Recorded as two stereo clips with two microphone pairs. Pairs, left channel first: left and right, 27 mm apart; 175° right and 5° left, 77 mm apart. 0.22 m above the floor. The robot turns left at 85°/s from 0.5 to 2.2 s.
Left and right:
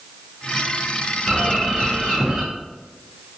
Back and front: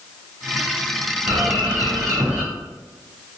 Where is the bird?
45° left, 1.5 m; by 2.4 s 35° right, 1.5 m.